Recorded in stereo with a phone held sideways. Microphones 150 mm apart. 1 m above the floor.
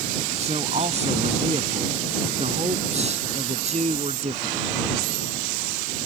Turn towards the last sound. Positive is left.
turn(degrees=-50)  # may be behind; listen again after turning